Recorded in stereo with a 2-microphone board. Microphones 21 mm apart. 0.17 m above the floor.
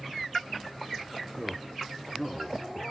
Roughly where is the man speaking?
Centre.